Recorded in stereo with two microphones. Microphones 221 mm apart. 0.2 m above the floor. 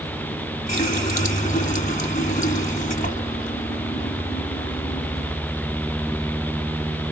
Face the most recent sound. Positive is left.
turn(degrees=35)  # may be behind; listen again after turning